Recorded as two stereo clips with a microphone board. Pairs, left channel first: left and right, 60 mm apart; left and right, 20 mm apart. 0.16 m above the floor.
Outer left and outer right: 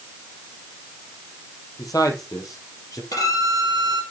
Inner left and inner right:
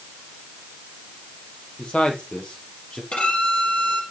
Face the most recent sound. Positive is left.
turn(degrees=70)  # may be behind; listen again after turning